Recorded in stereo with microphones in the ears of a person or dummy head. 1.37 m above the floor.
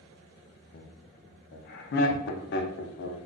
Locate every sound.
0.7 s laughter: 60° left (ahead or behind), 0.5 m